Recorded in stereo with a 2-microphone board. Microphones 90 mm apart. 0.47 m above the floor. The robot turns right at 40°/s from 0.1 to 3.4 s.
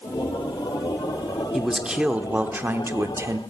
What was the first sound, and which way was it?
A man speaking, 175° right.